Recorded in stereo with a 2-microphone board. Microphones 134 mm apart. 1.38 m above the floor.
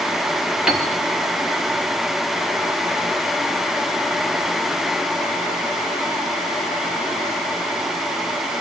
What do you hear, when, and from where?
0.7 s a piano: 5° right (ahead or behind), 3.5 m